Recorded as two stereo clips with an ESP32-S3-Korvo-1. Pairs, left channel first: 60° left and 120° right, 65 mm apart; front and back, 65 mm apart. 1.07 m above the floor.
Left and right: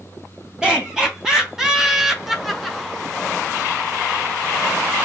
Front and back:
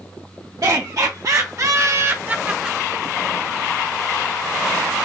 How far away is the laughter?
About 2.0 m.